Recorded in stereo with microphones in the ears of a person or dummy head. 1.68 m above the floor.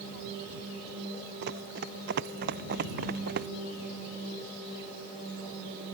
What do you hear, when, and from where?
1.4 s running footsteps: 60° right (ahead or behind); by 3.5 s 50° right (ahead or behind)